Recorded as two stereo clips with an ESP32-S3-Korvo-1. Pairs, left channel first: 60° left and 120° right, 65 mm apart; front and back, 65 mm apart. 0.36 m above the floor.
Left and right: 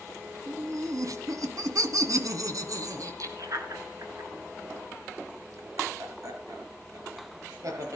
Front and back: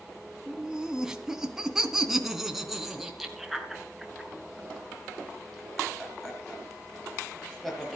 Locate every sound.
0.5 s laughter: 100° right, 2.5 m; by 8.0 s 85° right, 7.5 m